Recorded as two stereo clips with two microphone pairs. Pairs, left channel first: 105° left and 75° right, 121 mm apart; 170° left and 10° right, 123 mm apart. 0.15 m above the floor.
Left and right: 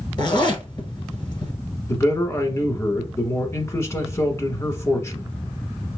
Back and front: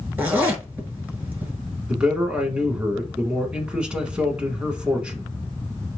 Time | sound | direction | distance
0.2 | a zipper | 60° left | 1.3 m
1.9 | a man speaking | 60° left | 1.2 m